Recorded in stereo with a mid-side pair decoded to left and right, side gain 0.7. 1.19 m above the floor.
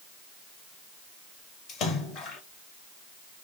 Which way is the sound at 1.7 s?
50° left.